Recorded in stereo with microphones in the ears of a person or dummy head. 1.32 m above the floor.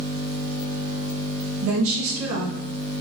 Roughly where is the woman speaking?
Right.